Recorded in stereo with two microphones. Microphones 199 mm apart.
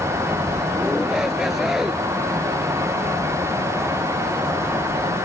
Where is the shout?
Centre (ahead or behind).